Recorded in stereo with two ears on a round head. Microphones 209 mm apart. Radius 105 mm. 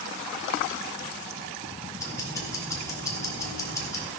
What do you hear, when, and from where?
2.0 s ticking: 15° left (ahead or behind), 2.5 m